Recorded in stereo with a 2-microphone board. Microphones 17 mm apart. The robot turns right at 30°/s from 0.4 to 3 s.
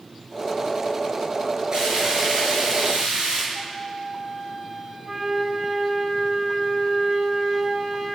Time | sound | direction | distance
1.7 | frying | 140° right | 9 m
3.5 | a flute | 25° right (ahead or behind) | 7 m
5.0 | a flute | 55° right (ahead or behind) | 7.5 m